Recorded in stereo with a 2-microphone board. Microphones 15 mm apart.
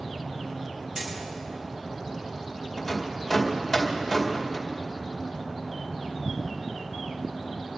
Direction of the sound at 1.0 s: 35° right (ahead or behind).